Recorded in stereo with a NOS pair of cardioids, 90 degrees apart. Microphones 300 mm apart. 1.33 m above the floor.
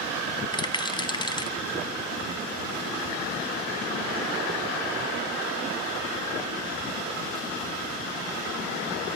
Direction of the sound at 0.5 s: 15° left.